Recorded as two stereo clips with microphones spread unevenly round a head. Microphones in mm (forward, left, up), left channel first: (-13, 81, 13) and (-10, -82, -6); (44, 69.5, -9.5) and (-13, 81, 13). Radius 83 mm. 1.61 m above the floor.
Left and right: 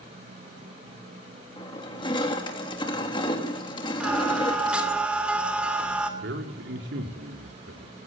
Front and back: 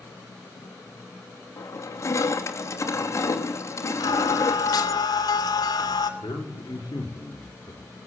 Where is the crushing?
25° left, 3 m.